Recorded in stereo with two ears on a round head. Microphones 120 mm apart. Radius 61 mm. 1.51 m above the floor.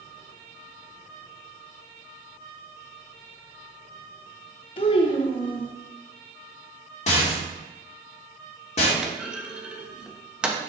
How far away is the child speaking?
About 0.9 m.